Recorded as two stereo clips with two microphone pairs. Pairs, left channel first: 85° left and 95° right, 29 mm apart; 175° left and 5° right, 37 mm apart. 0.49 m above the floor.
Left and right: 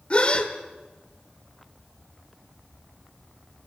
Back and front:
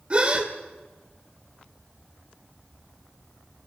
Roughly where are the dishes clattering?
I don't hear dishes clattering.